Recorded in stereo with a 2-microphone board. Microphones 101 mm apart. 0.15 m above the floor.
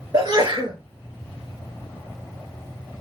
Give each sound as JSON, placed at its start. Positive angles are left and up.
{"t": 0.1, "sound": "a sneeze", "side_deg": -45, "distance_m": 2.5}